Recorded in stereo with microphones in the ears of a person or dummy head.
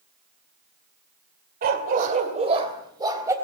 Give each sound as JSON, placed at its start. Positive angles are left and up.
{"t": 1.6, "sound": "a dog barking", "side_deg": -50, "distance_m": 2.0}